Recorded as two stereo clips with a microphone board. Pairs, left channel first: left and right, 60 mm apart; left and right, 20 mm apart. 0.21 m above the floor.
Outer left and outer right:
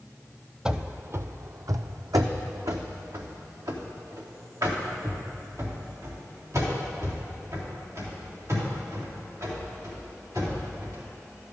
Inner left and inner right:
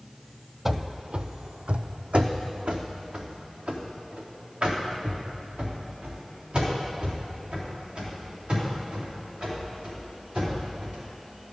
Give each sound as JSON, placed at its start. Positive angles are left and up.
{"t": 0.7, "sound": "running footsteps", "side_deg": -15, "distance_m": 0.5}